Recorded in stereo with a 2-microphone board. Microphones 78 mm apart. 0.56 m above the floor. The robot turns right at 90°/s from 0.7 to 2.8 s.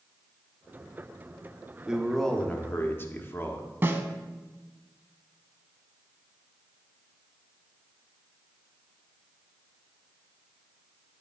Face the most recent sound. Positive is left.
turn(degrees=-30)  # may be behind; listen again after turning